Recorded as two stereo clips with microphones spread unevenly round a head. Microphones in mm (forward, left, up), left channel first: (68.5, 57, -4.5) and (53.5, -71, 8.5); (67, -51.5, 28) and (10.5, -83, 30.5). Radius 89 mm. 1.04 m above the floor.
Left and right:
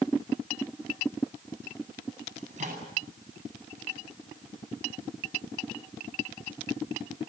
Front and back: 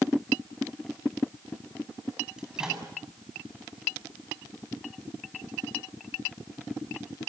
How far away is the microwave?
About 8.5 m.